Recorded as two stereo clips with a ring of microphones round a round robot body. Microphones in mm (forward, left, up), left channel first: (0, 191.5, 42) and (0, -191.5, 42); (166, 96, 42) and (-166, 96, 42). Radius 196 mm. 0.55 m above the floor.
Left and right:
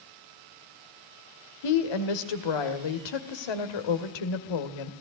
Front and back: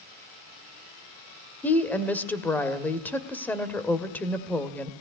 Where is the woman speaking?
85° left, 2 m.